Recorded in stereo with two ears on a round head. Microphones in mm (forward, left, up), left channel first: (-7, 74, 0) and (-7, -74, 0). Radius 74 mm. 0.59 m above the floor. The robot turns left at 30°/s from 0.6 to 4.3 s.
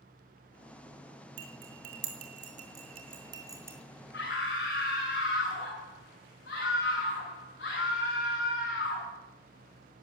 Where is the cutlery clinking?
85° right, 2.5 m; by 3.8 s 15° right (ahead or behind), 2.5 m.